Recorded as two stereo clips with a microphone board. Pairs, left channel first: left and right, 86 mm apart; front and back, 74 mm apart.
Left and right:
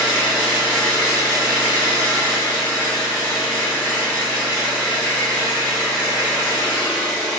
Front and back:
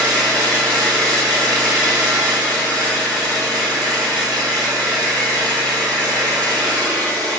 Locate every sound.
0.0 s an engine running: 165° right, 2 m